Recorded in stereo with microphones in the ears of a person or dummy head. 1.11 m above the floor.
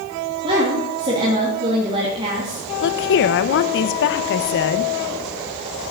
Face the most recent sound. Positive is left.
turn(degrees=60)  # may be behind; listen again after turning